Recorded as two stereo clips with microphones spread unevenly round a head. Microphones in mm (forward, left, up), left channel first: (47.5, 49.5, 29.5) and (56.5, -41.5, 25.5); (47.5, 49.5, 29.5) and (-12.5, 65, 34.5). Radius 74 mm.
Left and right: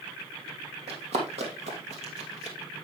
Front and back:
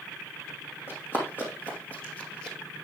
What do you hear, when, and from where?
0.9 s running footsteps: 90° right, 2.5 m; by 2.6 s 115° right, 1.7 m